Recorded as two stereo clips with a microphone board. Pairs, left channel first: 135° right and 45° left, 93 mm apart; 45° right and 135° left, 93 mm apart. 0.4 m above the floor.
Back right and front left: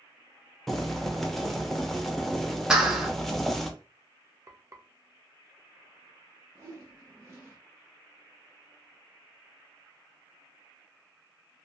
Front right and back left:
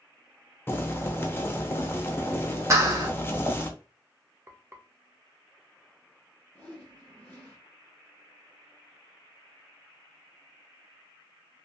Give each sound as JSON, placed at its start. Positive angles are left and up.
{"t": 0.7, "sound": "boiling", "azimuth_deg": -50, "distance_m": 0.5}
{"t": 2.7, "sound": "a clap", "azimuth_deg": 120, "distance_m": 0.7}
{"t": 4.5, "sound": "frying", "azimuth_deg": 80, "distance_m": 0.6}
{"t": 6.5, "sound": "a whoosh", "azimuth_deg": 10, "distance_m": 1.1}